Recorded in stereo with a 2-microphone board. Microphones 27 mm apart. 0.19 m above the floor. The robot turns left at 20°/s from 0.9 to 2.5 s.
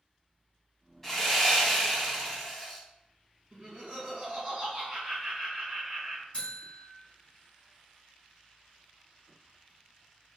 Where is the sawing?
10° left (ahead or behind), 1.2 m; by 2.8 s centre (ahead or behind), 1.2 m.